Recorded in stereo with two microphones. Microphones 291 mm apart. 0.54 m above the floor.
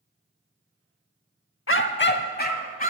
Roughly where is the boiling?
I don't hear boiling.